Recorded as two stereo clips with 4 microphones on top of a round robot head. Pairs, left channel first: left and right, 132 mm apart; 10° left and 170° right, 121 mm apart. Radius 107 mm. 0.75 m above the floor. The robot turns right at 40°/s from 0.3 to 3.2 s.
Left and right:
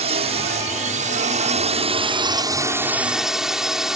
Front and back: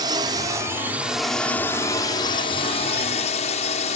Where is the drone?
120° right; by 4.0 s 5° right.